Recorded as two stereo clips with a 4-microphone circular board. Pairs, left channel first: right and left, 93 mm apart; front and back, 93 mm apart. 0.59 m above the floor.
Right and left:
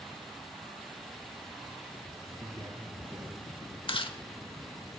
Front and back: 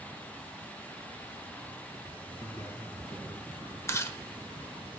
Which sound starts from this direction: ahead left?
A man speaking, at 2.4 s.